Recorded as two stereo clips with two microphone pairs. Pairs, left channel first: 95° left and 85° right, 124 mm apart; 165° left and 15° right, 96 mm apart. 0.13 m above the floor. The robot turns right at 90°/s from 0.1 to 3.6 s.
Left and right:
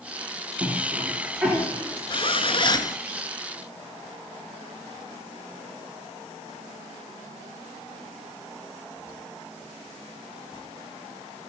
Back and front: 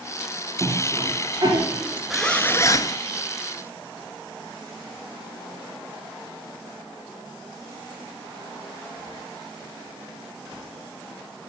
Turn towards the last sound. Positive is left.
turn(degrees=-155)